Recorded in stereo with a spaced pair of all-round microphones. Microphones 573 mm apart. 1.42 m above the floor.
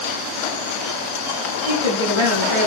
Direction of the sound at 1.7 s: 60° right (ahead or behind).